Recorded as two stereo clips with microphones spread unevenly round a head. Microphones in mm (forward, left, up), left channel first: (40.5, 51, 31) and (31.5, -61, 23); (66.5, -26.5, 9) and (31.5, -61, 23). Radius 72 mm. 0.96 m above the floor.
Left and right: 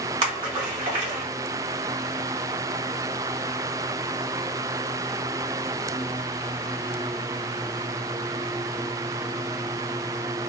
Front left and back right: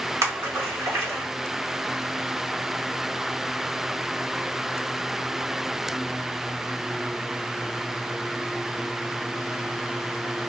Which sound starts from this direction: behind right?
A splash, at 0.2 s.